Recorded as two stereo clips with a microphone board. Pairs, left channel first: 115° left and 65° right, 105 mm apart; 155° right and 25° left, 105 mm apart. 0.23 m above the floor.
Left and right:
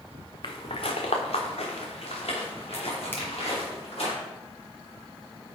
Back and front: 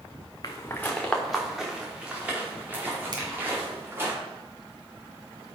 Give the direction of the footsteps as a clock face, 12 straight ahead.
7 o'clock.